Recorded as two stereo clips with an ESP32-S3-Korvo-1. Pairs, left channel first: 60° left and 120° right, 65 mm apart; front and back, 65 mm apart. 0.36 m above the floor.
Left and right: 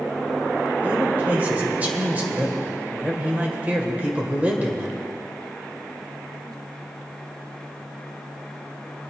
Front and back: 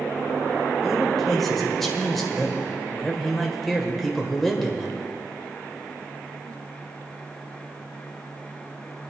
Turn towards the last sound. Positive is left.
turn(degrees=-85)